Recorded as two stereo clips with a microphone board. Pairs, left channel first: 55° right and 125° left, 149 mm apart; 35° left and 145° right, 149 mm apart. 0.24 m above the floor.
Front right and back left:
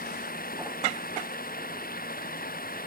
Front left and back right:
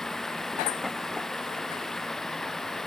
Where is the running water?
55° right.